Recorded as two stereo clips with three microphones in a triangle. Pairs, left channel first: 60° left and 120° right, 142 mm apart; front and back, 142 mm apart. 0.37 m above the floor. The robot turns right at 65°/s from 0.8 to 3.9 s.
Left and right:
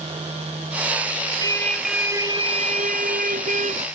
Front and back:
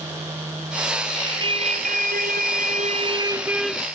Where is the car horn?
120° left; by 3.9 s 80° right.